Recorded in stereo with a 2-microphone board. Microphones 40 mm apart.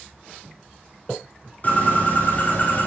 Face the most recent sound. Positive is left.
turn(degrees=40)  # may be behind; listen again after turning